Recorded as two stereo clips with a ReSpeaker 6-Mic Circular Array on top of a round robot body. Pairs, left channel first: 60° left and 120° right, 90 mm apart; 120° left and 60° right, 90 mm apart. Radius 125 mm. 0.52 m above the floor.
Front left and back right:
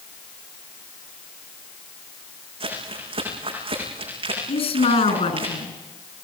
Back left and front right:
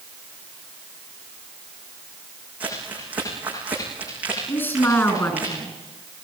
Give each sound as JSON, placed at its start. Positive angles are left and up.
{"t": 2.6, "sound": "crumpling", "azimuth_deg": -135, "distance_m": 9.0}
{"t": 4.5, "sound": "a woman speaking", "azimuth_deg": 55, "distance_m": 7.0}